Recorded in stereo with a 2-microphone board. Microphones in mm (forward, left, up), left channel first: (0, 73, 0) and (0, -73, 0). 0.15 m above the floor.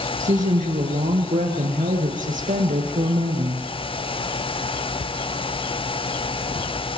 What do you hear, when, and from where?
0.2 s a woman speaking: 55° right (ahead or behind), 4 m